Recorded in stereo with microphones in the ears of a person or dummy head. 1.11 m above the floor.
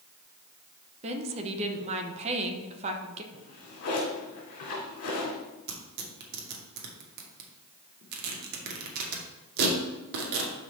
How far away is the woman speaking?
About 0.9 m.